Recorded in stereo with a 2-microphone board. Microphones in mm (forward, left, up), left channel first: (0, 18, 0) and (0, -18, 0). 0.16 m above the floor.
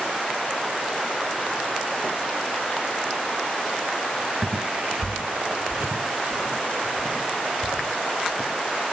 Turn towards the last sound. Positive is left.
turn(degrees=-70)  # may be behind; listen again after turning